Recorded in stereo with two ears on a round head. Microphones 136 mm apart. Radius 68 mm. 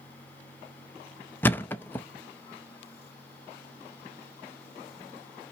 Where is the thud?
15° left (ahead or behind), 0.5 m.